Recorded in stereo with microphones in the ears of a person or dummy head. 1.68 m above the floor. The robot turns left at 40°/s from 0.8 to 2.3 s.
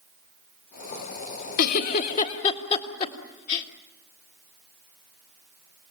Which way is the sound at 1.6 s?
60° left (ahead or behind).